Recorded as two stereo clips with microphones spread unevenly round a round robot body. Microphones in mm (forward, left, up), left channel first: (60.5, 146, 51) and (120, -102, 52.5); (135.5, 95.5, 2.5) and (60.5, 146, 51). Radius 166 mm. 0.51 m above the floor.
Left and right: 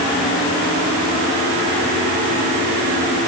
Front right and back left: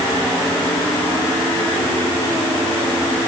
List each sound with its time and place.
Only background noise.